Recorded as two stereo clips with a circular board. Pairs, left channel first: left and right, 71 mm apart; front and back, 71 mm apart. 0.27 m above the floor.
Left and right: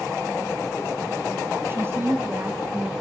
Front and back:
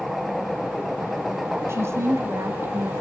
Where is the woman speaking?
140° right, 1.6 m.